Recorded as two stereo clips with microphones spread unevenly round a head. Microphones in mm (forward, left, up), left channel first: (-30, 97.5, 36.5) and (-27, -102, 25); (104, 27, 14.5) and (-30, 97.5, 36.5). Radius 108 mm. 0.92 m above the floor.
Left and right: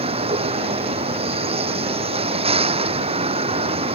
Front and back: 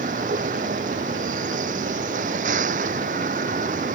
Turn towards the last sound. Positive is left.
turn(degrees=-150)